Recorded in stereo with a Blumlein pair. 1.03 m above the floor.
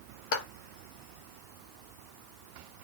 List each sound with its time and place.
0.3 s a clap: 55° left, 1.5 m